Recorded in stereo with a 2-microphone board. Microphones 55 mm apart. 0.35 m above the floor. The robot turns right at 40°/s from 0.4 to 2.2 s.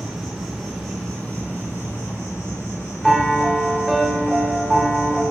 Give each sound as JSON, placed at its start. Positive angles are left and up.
{"t": 0.0, "sound": "an insect", "azimuth_deg": -5, "distance_m": 1.0}
{"t": 3.0, "sound": "a piano", "side_deg": 0, "distance_m": 0.6}